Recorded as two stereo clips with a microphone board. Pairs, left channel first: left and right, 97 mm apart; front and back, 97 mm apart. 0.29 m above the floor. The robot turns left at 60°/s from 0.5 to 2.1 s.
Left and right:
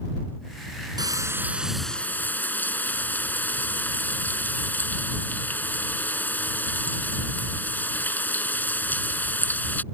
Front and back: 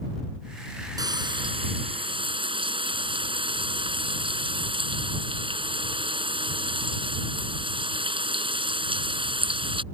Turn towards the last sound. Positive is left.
turn(degrees=160)